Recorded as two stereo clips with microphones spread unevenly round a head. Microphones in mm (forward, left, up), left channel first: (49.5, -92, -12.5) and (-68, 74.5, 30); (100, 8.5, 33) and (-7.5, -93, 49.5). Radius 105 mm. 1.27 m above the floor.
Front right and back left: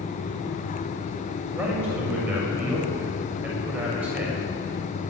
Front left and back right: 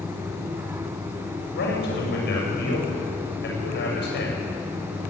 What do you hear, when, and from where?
1.5 s a man speaking: 45° left, 7 m